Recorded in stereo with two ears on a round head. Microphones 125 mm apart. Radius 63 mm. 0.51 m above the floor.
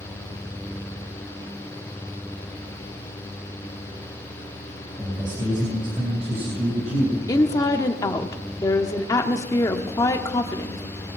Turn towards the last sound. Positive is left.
turn(degrees=25)  # may be behind; listen again after turning